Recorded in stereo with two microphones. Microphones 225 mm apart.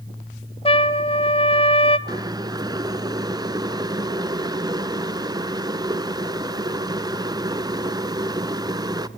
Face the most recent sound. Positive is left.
turn(degrees=-20)  # may be behind; listen again after turning